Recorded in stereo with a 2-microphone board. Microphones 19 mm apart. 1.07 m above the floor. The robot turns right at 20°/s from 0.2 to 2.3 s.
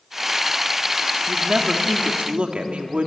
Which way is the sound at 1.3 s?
55° right (ahead or behind).